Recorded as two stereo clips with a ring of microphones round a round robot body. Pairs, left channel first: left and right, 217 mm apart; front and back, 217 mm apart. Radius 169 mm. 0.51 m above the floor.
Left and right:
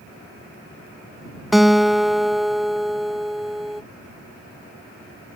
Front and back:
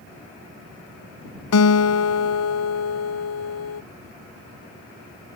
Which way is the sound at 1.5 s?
Straight ahead.